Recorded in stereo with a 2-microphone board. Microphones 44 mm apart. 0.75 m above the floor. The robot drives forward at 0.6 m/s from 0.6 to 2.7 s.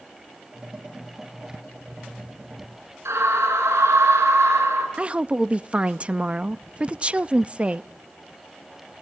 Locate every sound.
3.0 s a scream: 85° right, 8 m
5.0 s a woman speaking: 25° right (ahead or behind), 0.5 m